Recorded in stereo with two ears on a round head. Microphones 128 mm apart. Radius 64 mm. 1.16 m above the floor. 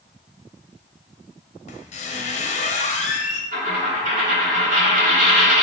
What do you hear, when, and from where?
1.7 s a squeak: 50° left (ahead or behind), 0.6 m
3.5 s a dropped coin: 60° right (ahead or behind), 1.8 m